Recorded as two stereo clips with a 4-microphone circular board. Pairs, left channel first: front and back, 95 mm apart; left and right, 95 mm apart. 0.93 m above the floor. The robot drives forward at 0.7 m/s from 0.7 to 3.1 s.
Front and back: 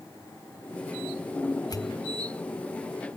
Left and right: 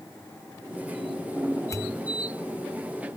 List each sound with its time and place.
1.7 s a pop: 35° left, 0.8 m; by 2.0 s 55° left, 0.7 m